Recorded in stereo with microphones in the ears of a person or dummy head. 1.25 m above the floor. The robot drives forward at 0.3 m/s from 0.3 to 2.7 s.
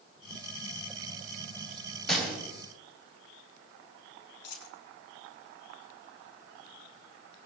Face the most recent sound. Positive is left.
turn(degrees=75)  # may be behind; listen again after turning